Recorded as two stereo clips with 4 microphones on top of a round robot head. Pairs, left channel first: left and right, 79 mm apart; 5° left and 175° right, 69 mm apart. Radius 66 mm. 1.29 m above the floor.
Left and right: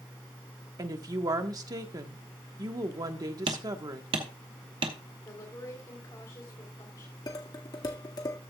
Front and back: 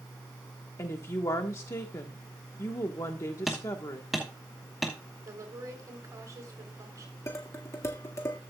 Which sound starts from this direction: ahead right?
A woman speaking, at 0.8 s.